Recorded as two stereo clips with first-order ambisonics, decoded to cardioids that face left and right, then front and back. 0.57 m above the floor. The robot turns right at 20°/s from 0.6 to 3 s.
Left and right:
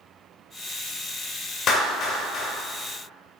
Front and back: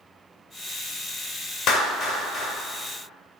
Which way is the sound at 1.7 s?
40° left.